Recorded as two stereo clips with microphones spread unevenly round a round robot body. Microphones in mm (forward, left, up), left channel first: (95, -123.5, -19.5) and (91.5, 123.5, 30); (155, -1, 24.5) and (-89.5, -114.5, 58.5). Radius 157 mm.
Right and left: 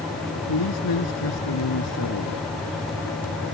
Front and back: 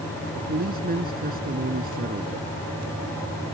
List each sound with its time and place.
0.3 s a man speaking: 100° right